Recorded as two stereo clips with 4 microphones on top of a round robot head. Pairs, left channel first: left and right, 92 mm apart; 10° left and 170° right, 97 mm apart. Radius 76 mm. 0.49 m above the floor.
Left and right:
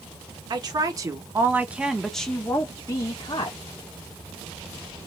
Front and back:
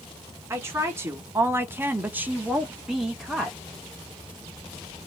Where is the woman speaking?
115° right, 1.3 m; by 3.6 s 100° left, 1.2 m.